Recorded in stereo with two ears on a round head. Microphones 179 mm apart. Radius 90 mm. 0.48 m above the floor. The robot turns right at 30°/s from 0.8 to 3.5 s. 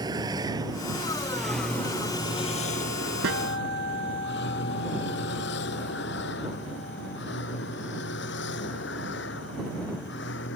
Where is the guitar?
75° right (ahead or behind); by 7.2 s 80° right.